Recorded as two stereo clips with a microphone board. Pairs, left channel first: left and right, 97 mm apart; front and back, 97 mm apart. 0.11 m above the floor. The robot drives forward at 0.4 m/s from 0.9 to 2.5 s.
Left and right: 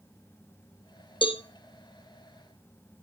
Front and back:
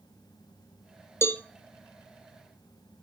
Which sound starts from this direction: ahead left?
A cowbell, at 1.2 s.